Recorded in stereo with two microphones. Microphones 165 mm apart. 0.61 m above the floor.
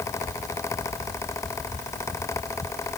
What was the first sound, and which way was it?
Only background noise.